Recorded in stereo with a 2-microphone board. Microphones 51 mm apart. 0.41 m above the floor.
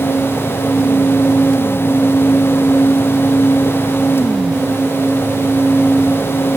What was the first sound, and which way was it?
Only background noise.